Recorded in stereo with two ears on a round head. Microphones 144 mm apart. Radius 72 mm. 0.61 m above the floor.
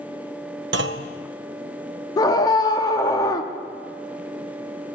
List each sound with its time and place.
0.7 s a clunk: 80° right, 0.6 m
2.2 s a scream: 25° left (ahead or behind), 0.9 m